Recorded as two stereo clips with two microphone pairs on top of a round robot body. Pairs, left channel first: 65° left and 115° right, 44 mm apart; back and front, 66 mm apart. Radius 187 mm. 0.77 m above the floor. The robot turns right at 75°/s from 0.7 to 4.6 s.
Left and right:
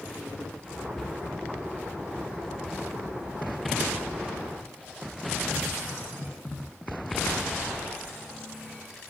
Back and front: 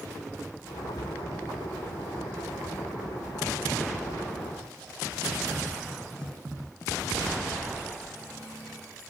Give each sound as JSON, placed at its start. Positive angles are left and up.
{"t": 1.0, "sound": "a cupboard door", "azimuth_deg": 145, "distance_m": 0.6}